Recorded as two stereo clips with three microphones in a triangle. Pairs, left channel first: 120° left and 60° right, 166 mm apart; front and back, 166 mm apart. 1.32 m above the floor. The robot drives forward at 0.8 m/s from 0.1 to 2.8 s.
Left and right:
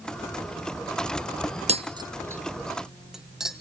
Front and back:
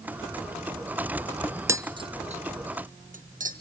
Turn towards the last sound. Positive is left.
turn(degrees=-150)